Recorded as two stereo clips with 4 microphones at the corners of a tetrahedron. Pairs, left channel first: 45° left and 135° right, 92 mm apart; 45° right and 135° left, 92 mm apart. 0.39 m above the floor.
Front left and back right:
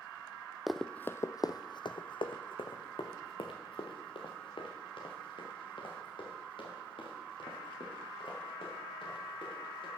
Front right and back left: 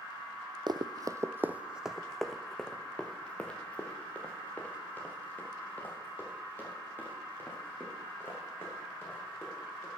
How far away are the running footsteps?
About 0.5 m.